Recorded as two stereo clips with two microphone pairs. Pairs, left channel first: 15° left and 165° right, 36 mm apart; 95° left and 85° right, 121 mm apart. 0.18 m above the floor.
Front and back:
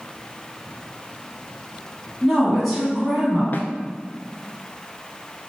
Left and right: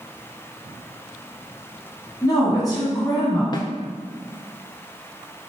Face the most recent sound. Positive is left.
turn(degrees=45)